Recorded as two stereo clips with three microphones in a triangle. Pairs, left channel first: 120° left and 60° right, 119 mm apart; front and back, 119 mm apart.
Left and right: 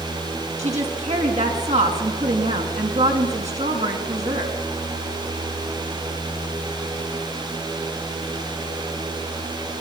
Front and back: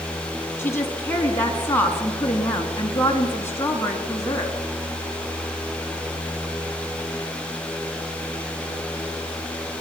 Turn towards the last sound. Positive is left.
turn(degrees=-70)